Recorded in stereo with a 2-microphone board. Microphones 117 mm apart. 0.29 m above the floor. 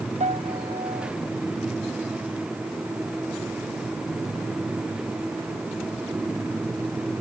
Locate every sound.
0.2 s a piano: 80° right